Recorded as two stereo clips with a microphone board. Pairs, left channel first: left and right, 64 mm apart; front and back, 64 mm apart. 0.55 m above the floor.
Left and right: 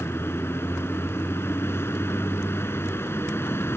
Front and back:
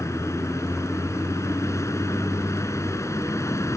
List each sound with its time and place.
0.0 s a vehicle: 40° left